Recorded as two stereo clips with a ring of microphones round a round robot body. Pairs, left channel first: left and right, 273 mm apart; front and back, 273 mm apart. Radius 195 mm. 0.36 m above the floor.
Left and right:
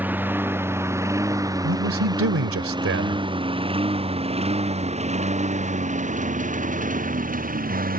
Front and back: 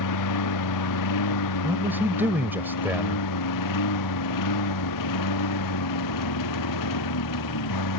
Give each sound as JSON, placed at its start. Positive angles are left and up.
{"t": 0.0, "sound": "a lawn mower", "azimuth_deg": -5}
{"t": 1.6, "sound": "a man speaking", "azimuth_deg": -100}